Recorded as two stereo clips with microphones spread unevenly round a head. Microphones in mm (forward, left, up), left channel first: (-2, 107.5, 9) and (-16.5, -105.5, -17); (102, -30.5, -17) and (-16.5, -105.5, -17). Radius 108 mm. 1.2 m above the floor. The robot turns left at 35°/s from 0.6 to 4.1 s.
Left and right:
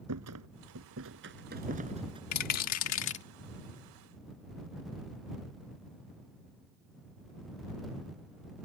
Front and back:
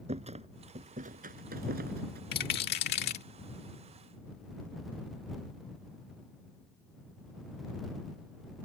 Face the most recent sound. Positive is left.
turn(degrees=15)